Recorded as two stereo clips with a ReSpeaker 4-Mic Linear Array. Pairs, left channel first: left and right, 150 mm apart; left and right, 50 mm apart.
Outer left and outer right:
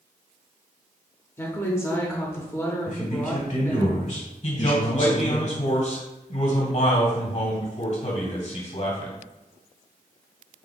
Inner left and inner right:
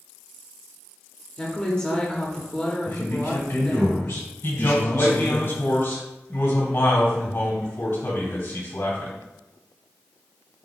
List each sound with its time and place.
1.4 s a woman speaking: 15° left (ahead or behind), 0.9 m
2.9 s a man speaking: 55° left (ahead or behind), 1.7 m
4.4 s a man speaking: 55° left (ahead or behind), 1.9 m